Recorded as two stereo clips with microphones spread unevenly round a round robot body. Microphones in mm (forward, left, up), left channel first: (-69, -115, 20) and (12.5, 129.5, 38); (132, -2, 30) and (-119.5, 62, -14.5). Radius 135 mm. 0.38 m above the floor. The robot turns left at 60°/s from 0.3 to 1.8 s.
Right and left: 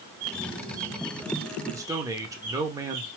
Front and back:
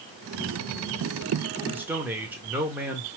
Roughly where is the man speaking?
Behind left.